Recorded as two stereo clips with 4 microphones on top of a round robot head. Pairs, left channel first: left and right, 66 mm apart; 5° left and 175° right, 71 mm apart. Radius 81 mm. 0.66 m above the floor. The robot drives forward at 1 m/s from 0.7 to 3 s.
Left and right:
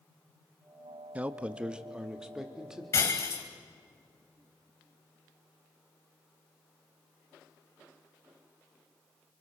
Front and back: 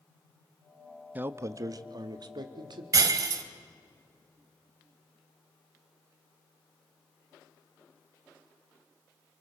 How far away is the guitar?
No guitar in this recording.